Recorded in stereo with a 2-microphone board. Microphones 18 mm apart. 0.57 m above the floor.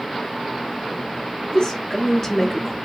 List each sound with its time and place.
1.4 s a woman speaking: 45° left (ahead or behind), 0.8 m; by 2.8 s 5° left (ahead or behind), 0.8 m